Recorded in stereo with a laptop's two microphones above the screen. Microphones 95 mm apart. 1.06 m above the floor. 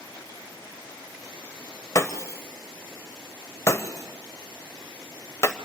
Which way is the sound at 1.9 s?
30° left (ahead or behind).